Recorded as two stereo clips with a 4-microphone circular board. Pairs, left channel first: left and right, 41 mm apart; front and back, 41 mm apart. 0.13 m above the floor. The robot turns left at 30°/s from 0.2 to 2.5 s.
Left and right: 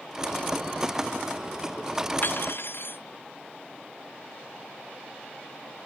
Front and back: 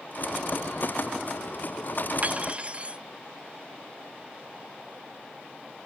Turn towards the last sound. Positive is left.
turn(degrees=120)